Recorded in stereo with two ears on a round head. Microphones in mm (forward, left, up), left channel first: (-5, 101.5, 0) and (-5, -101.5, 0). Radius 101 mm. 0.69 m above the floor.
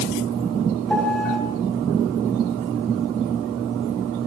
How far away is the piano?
About 4.5 m.